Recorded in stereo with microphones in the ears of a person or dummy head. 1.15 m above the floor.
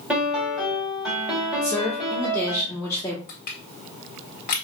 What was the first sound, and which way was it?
A piano, centre (ahead or behind).